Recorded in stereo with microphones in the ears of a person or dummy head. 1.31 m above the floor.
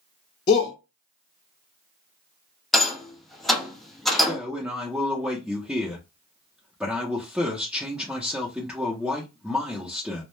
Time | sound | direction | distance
0.5 | a shout | 30° left (ahead or behind) | 0.6 m
2.7 | a rattle | 5° left (ahead or behind) | 0.5 m
4.2 | a man speaking | centre (ahead or behind) | 0.5 m